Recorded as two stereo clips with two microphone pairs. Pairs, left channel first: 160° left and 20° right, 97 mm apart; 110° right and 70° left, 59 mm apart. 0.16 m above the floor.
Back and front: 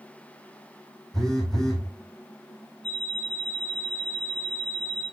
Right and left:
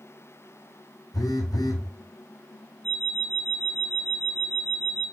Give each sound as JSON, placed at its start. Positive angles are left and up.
{"t": 1.1, "sound": "a phone buzzing", "azimuth_deg": -115, "distance_m": 1.2}
{"t": 2.8, "sound": "an alarm clock", "azimuth_deg": -175, "distance_m": 2.0}